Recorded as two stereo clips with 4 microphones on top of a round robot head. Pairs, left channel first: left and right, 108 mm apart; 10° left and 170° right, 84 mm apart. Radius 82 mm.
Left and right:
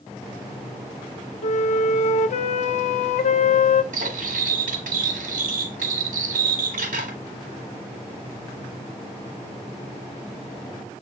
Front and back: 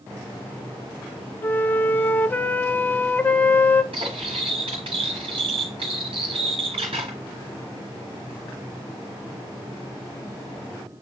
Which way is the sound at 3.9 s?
120° right.